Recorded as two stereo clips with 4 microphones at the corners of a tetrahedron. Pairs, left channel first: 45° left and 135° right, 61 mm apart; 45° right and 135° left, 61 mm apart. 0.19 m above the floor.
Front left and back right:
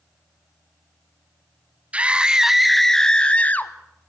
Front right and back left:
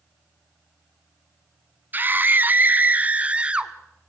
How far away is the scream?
About 1.2 m.